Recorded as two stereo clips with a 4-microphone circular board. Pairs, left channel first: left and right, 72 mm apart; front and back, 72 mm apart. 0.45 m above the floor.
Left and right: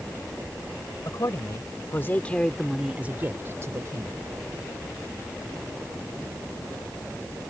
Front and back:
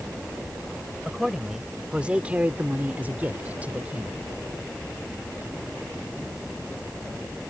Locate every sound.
1.1 s a man speaking: 100° left; by 4.2 s 110° right